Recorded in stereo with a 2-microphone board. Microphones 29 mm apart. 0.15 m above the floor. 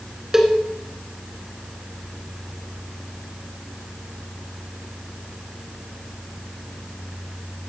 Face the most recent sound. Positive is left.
turn(degrees=-15)  # may be behind; listen again after turning